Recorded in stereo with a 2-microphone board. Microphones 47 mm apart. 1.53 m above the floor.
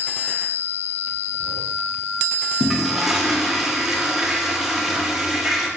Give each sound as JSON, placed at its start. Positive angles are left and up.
{"t": 2.6, "sound": "a toilet flushing", "side_deg": -10, "distance_m": 0.5}